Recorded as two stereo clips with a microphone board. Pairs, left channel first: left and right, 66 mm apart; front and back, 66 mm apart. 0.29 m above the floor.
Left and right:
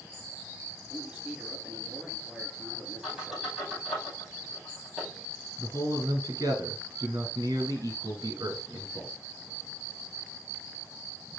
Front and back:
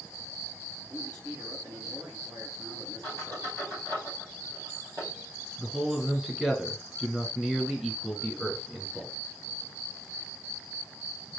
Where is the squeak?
170° right, 5 m.